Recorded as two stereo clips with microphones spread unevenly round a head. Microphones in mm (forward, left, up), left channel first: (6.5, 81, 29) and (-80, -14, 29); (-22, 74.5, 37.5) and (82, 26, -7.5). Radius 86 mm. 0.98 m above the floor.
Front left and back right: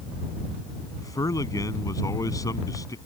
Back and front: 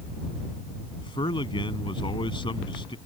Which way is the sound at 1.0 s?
110° left.